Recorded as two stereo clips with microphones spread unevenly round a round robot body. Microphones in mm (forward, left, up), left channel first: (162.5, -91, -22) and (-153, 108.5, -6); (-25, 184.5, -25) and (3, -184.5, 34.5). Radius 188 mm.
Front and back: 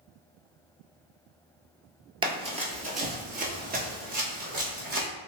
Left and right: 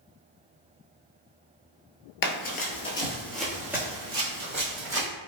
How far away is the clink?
No clink in this recording.